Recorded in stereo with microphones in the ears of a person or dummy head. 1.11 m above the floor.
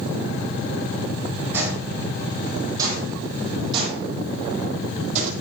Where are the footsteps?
15° right (ahead or behind), 3.5 m; by 5.3 s 45° right (ahead or behind), 2 m.